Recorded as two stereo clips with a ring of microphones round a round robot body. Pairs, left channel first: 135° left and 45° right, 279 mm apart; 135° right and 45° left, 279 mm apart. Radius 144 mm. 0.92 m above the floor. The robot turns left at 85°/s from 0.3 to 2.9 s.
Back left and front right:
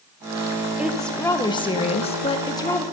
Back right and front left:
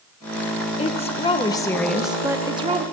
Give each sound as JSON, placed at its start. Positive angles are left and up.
{"t": 0.8, "sound": "a woman speaking", "azimuth_deg": -120, "distance_m": 0.9}